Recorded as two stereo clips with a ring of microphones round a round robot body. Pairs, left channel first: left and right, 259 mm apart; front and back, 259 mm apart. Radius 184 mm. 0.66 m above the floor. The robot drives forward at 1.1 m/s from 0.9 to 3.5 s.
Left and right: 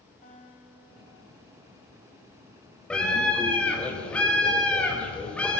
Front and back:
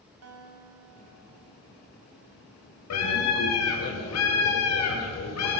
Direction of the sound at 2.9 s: 5° left.